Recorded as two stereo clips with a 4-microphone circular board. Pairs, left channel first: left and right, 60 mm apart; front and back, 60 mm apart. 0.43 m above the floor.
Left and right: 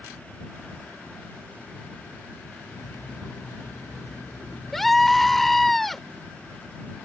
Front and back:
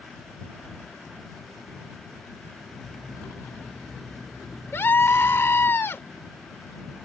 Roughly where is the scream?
Ahead.